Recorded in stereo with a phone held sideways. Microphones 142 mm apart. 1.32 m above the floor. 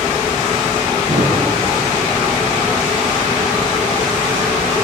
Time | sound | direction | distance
1.1 | a thud | 60° right (ahead or behind) | 6.5 m